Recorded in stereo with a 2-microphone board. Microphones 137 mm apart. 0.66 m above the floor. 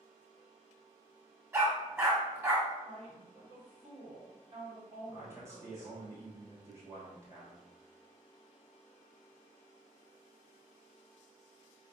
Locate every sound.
1.5 s a dog barking: 20° right (ahead or behind), 0.8 m
2.9 s a woman speaking: 50° right (ahead or behind), 1.9 m
5.1 s a man speaking: 20° right (ahead or behind), 0.9 m